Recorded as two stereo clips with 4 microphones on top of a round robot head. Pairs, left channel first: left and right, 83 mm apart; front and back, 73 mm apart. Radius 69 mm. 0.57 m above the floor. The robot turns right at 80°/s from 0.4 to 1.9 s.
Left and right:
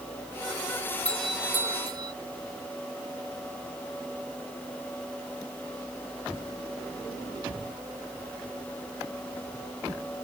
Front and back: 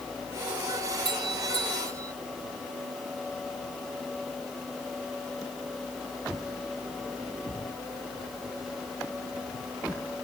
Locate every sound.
1.1 s a doorbell: 165° left; by 2.1 s 130° right